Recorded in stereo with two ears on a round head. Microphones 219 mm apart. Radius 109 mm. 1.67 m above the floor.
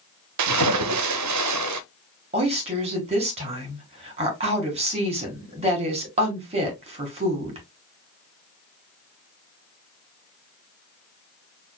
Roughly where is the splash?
Right.